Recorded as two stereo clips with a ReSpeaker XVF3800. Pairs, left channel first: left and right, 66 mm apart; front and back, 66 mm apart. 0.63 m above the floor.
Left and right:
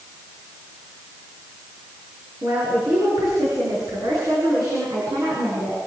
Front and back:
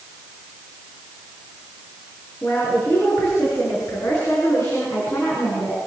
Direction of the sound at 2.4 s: 50° right.